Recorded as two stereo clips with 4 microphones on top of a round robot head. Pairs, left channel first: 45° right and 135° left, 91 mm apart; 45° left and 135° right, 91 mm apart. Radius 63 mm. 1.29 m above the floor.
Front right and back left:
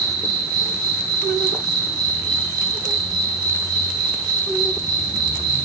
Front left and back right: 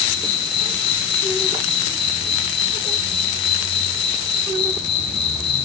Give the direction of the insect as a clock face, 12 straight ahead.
9 o'clock.